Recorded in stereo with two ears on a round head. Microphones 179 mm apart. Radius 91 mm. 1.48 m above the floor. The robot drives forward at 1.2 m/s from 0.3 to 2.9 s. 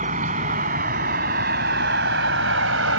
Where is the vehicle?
40° right (ahead or behind); by 3.0 s 70° right (ahead or behind).